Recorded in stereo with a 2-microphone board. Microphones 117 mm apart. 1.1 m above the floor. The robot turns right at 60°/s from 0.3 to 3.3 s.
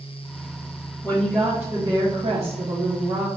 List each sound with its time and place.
1.0 s a woman speaking: 160° left, 0.9 m; by 3.3 s 65° right, 0.9 m